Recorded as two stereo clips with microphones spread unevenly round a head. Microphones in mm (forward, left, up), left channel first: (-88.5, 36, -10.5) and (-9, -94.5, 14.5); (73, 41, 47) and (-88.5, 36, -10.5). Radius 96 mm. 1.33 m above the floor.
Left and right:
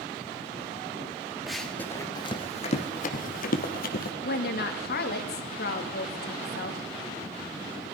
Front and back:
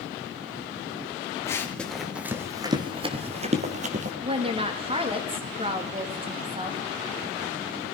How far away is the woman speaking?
About 2.5 m.